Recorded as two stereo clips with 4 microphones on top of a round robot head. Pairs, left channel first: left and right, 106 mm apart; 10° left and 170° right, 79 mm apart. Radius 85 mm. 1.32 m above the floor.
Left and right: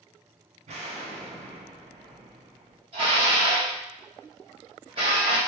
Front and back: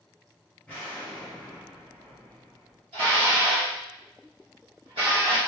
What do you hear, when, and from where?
0.7 s an explosion: 70° right, 0.5 m
2.9 s dishes clattering: 140° right, 0.7 m